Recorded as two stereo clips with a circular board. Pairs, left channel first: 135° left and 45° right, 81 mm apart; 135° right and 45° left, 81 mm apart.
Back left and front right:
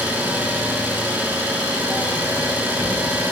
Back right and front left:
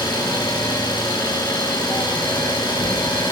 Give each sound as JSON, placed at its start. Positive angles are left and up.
{"t": 0.0, "sound": "an engine running", "azimuth_deg": -110, "distance_m": 6.5}